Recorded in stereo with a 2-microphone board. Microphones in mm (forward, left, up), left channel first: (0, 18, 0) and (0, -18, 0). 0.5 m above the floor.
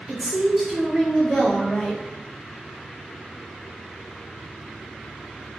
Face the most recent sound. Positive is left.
turn(degrees=10)  # may be behind; listen again after turning